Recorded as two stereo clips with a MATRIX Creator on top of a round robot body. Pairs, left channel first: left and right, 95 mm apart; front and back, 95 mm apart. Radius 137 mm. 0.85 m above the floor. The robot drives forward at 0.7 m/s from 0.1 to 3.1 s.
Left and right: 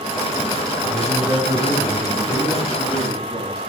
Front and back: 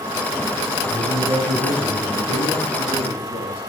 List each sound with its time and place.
0.9 s a man speaking: 155° right, 10 m; by 3.6 s 160° right, 11.5 m